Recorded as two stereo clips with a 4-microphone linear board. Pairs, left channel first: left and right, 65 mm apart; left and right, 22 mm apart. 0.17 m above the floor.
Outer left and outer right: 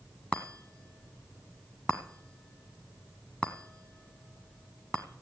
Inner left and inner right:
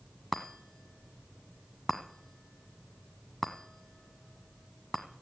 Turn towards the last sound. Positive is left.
turn(degrees=20)  # may be behind; listen again after turning